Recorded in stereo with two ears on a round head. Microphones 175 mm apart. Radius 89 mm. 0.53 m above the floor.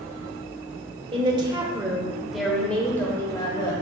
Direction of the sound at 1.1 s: 30° right (ahead or behind).